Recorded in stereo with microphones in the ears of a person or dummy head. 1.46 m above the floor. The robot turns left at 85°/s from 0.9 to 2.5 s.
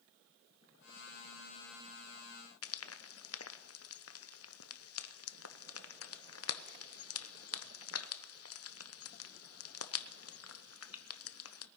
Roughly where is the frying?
Left.